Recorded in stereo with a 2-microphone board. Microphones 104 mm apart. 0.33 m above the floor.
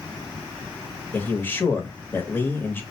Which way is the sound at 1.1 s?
20° left (ahead or behind).